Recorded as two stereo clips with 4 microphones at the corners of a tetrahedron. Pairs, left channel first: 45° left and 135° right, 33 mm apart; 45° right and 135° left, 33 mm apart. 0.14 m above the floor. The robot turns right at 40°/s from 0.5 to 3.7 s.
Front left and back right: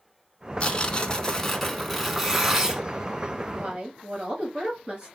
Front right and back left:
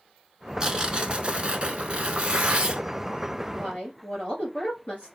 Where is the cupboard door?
No cupboard door in this recording.